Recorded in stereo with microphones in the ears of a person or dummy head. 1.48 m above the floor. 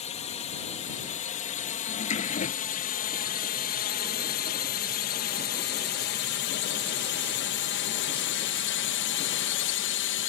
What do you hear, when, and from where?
0.0 s a drone: 35° left (ahead or behind); by 10.3 s 60° left (ahead or behind)
1.9 s a drawer: 40° left (ahead or behind)